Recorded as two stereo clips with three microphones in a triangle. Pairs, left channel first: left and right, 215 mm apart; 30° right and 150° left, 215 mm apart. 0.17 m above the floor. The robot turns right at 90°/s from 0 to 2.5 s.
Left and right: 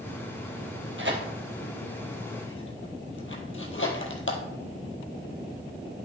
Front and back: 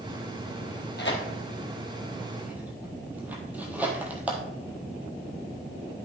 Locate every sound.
1.0 s tearing paper: 70° right, 1.4 m; by 4.4 s 70° left, 1.4 m